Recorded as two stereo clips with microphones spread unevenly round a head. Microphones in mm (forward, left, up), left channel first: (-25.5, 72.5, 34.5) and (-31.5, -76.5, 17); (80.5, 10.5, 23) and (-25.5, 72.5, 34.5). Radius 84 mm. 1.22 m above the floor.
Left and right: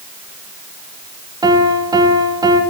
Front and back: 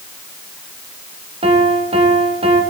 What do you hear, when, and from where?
1.4 s a piano: 155° right, 1.6 m